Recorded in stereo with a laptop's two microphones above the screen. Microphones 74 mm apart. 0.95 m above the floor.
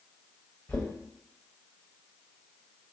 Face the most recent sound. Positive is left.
turn(degrees=25)  # may be behind; listen again after turning